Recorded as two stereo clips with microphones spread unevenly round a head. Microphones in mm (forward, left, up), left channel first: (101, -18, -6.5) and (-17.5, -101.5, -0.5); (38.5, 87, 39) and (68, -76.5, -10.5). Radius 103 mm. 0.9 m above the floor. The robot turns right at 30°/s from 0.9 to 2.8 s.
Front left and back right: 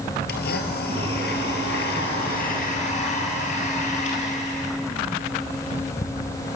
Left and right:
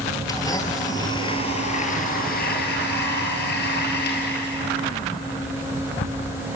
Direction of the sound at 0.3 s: 35° left.